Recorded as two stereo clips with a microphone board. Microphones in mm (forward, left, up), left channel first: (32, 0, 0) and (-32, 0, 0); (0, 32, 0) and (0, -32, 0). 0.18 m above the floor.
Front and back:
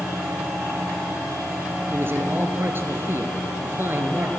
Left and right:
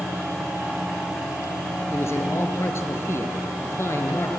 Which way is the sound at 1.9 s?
130° left.